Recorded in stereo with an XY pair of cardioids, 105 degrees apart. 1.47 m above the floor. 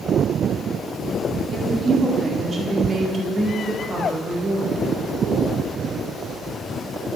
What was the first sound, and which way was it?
A woman speaking, 40° right.